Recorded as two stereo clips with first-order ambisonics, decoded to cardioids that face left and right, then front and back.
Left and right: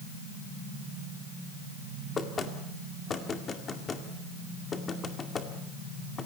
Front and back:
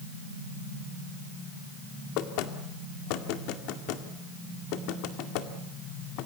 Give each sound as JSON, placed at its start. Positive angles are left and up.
{"t": 2.2, "sound": "knocking", "azimuth_deg": 20, "distance_m": 2.0}